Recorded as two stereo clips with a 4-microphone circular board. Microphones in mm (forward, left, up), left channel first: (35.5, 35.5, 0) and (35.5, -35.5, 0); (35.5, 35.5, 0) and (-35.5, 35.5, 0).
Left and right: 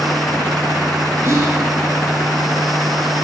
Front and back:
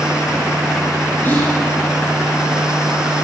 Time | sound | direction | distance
1.2 | whispering | 55° right | 2.5 m